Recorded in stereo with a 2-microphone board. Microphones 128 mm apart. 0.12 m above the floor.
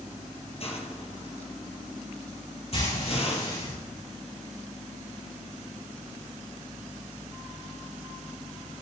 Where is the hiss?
50° left (ahead or behind), 2.5 m.